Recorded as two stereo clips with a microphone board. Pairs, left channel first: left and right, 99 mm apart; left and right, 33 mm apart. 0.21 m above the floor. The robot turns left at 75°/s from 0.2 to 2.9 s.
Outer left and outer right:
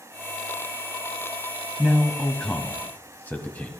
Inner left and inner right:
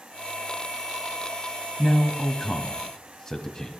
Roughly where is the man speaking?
Centre.